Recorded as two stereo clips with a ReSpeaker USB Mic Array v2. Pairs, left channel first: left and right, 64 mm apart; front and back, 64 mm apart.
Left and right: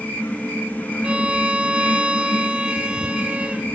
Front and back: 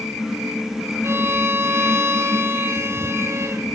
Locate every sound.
1.0 s a violin: 155° right, 1.5 m